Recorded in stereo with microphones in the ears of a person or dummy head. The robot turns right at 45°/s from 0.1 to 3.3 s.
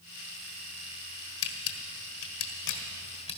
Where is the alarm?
I don't hear an alarm.